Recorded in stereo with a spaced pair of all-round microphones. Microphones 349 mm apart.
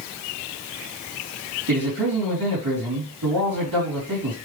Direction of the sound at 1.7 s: 70° right (ahead or behind).